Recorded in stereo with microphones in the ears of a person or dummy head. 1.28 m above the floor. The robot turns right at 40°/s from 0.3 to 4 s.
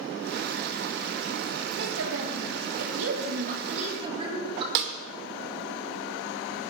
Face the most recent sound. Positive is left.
turn(degrees=-60)  # may be behind; listen again after turning